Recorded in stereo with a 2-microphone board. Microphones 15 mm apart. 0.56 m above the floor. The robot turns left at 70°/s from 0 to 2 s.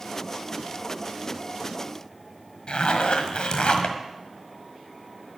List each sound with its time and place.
2.7 s a zipper: 65° left (ahead or behind), 1.6 m